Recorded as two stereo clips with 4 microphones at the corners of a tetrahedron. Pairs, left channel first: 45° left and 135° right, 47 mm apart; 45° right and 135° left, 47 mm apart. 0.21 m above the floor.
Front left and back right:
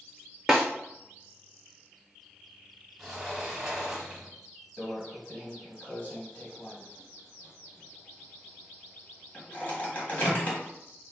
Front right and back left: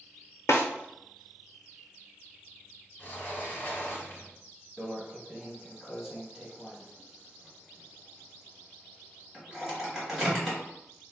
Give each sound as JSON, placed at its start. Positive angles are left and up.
{"t": 0.5, "sound": "a snare drum", "azimuth_deg": -50, "distance_m": 0.6}
{"t": 3.0, "sound": "a sliding door", "azimuth_deg": -55, "distance_m": 0.9}
{"t": 4.8, "sound": "a microwave", "azimuth_deg": 65, "distance_m": 1.1}